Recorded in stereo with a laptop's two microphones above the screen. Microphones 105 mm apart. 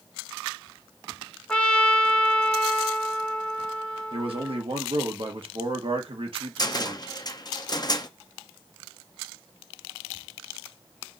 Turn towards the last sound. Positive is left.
turn(degrees=40)  # may be behind; listen again after turning